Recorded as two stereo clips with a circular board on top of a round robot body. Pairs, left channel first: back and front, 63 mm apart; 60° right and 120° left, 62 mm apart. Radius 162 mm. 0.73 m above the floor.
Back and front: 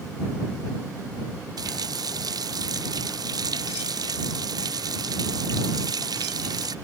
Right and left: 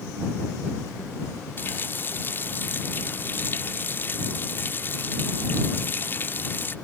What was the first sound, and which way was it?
A running tap, straight ahead.